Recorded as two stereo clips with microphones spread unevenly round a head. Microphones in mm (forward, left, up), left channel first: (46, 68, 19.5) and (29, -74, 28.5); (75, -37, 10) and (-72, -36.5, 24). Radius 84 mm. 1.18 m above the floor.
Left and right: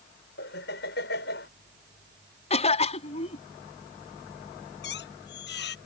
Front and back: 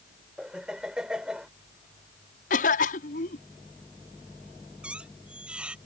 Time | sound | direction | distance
0.4 | laughter | 95° left | ?
2.5 | a cough | 40° left | ?
4.8 | a squeak | 95° left | ?